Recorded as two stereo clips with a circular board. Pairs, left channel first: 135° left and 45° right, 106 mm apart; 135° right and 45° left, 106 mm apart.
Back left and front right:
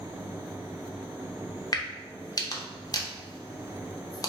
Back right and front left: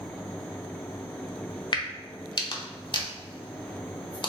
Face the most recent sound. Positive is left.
turn(degrees=-175)